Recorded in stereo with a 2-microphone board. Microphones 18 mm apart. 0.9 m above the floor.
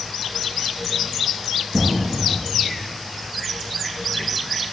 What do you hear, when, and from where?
1.7 s an explosion: 70° right (ahead or behind), 3.5 m